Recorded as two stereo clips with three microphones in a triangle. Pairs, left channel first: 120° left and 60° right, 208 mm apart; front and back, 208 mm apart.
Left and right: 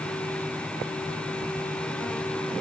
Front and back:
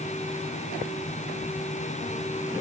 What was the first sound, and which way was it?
Only background noise.